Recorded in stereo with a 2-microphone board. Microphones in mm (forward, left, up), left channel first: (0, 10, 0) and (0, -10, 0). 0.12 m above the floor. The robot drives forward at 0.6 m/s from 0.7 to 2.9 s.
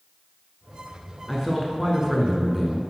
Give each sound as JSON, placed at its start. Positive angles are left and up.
{"t": 1.3, "sound": "a man speaking", "side_deg": -5, "distance_m": 1.2}